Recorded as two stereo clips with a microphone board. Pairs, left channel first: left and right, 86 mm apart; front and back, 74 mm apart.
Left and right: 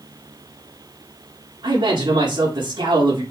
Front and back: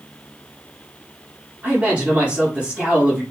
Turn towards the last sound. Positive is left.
turn(degrees=-105)